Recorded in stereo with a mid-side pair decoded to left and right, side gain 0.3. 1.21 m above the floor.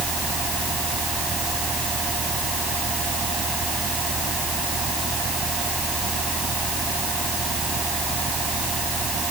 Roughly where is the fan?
Ahead right.